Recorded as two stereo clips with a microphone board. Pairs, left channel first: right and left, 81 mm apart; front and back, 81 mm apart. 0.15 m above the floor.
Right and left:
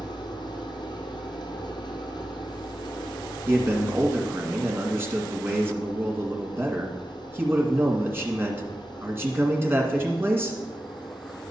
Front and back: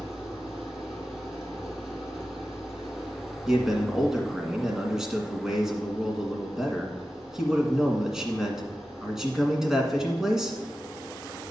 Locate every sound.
0.0 s an engine running: 90° right, 1.6 m
3.5 s a man speaking: 105° left, 1.7 m